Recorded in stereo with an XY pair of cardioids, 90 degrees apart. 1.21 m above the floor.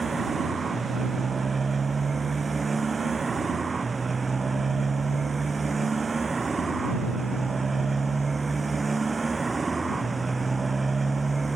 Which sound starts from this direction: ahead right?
A motorcycle, at 0.0 s.